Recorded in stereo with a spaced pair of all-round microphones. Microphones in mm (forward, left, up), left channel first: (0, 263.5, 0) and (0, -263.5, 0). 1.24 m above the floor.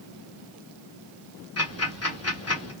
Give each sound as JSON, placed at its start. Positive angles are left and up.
{"t": 1.6, "sound": "ticking", "side_deg": 25, "distance_m": 1.6}